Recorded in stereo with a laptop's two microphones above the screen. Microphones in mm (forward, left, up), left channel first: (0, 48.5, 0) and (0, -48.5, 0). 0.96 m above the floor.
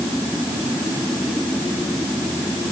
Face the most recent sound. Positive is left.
No sound to turn to.